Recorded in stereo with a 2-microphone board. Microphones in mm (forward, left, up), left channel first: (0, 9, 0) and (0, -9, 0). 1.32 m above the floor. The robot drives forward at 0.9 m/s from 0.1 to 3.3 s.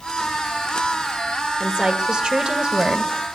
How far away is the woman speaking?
About 2.5 m.